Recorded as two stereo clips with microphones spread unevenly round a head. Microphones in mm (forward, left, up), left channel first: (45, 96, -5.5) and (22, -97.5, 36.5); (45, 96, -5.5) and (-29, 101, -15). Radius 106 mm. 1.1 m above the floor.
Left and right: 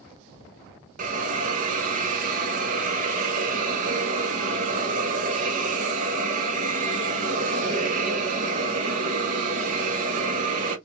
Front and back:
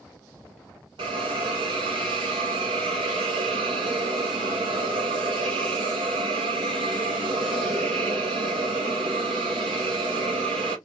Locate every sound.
1.0 s a hiss: 155° right, 0.7 m